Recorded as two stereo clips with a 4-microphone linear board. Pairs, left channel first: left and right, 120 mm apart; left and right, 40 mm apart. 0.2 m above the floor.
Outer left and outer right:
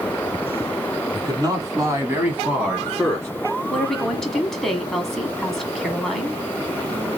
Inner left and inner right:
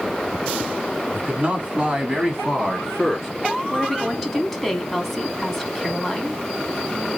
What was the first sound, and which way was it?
A man speaking, 40° right (ahead or behind).